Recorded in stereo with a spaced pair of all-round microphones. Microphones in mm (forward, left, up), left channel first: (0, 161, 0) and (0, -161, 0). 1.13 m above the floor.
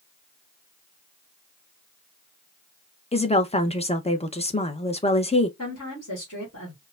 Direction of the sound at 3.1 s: 20° left (ahead or behind).